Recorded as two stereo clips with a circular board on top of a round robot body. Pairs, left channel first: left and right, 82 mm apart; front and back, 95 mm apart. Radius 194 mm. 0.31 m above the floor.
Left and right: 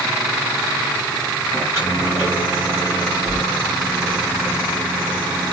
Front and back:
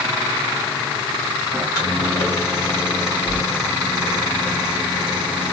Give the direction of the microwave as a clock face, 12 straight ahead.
7 o'clock.